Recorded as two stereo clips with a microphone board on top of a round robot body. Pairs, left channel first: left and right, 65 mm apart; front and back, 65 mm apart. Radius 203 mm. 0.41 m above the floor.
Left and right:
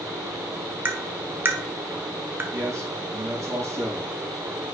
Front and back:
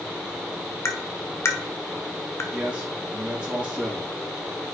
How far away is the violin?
I don't hear a violin.